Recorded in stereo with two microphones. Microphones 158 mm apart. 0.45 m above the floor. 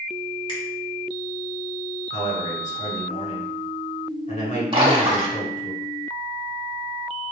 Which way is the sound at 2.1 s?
50° left (ahead or behind).